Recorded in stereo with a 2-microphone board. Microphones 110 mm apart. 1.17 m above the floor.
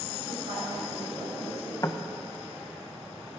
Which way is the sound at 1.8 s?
30° left (ahead or behind).